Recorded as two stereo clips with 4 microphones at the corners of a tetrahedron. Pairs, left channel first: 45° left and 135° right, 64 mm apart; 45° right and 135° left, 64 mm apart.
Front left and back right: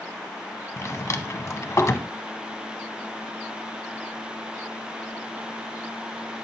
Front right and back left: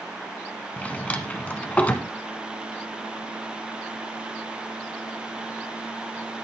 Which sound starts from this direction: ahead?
A drawer, at 0.8 s.